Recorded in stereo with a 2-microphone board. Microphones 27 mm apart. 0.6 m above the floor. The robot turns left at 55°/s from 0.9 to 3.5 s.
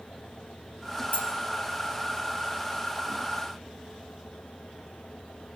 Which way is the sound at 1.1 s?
80° left.